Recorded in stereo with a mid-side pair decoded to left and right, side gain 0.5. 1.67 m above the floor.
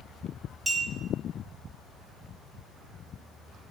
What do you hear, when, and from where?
0.7 s a clink: 20° right, 2 m